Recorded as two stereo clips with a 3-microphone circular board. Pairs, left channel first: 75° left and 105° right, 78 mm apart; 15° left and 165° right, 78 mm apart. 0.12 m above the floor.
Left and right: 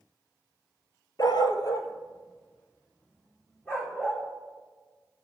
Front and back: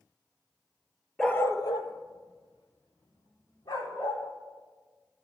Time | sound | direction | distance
1.2 | a dog barking | 100° left | 0.6 m